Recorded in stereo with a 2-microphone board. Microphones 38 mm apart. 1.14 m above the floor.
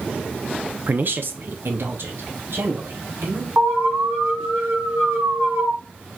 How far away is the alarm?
About 2.5 m.